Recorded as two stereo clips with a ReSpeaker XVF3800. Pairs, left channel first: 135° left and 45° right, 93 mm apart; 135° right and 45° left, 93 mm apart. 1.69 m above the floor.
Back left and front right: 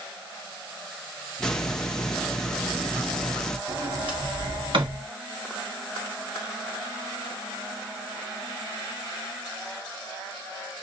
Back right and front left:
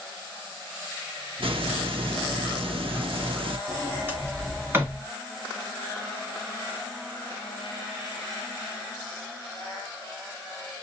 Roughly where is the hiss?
Ahead left.